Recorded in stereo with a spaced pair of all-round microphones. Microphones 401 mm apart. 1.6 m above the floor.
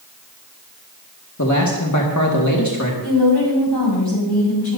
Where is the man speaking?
45° left (ahead or behind), 1.8 m.